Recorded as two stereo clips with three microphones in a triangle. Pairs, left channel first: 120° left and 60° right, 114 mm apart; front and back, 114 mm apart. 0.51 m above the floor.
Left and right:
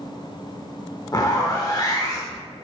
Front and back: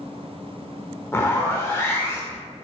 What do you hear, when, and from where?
1.1 s a zipper: 65° left, 0.6 m